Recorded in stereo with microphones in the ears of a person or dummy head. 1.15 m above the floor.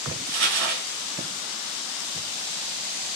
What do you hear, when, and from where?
0.3 s crumpling: 55° right (ahead or behind), 1.4 m